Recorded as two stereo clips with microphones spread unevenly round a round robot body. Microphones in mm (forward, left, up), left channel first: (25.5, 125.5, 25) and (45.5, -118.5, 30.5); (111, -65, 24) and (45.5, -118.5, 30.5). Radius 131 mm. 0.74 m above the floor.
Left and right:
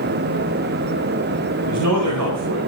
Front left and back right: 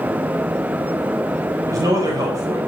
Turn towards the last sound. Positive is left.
turn(degrees=-90)